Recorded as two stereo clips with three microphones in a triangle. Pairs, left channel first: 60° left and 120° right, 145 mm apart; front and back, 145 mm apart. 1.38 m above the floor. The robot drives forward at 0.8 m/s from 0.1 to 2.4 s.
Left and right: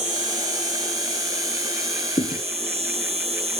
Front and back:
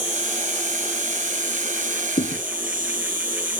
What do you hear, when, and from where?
0.0 s an insect: 155° right; by 3.6 s 165° right
2.2 s a thud: 15° left